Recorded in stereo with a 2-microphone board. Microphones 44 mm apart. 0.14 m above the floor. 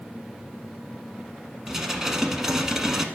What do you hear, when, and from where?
1.7 s dishes clattering: 10° right (ahead or behind), 0.8 m